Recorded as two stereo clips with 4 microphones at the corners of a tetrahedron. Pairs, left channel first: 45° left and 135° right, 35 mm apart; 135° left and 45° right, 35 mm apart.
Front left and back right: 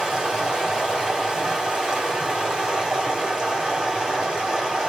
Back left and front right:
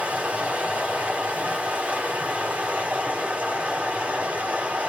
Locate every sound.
0.0 s running water: 65° right, 1.7 m